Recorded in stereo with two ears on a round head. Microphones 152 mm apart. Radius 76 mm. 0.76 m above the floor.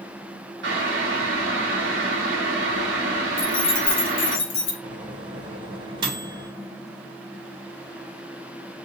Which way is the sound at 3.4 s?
60° left (ahead or behind).